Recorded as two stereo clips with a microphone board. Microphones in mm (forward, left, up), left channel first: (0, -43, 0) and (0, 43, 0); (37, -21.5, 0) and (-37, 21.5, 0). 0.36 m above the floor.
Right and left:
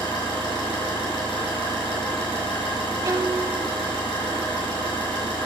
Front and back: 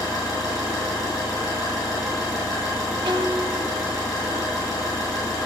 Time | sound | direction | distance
0.0 | an engine running | 75° right | 3.5 m
3.0 | a violin | 135° left | 0.6 m